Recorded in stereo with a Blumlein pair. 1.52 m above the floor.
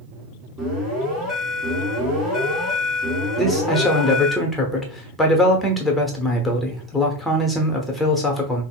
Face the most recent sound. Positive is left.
turn(degrees=5)